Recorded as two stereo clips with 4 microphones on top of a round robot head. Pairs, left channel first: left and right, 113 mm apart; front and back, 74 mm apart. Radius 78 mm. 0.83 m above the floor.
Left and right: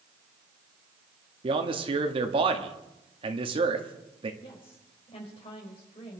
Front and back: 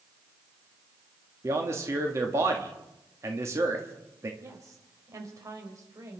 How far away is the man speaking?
About 2.0 m.